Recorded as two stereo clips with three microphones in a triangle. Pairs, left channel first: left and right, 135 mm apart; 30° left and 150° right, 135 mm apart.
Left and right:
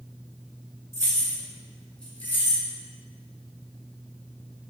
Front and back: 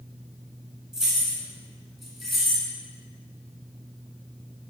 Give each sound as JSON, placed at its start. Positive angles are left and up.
{"t": 0.9, "sound": "keys jangling", "azimuth_deg": -65, "distance_m": 0.9}